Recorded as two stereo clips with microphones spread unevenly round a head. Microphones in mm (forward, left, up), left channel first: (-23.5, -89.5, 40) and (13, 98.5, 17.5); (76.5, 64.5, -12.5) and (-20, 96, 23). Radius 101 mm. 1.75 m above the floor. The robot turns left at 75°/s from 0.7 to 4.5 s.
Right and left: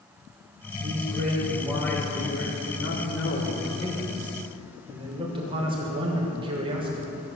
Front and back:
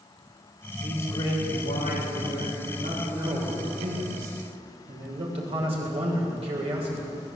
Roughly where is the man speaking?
Ahead left.